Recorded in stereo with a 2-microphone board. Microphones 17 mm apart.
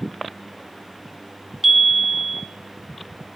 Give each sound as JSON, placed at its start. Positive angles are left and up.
{"t": 1.6, "sound": "a chime", "side_deg": -10, "distance_m": 1.1}